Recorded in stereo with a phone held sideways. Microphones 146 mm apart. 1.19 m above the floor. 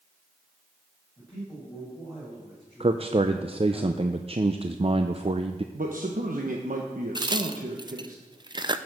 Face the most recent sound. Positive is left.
turn(degrees=-30)  # may be behind; listen again after turning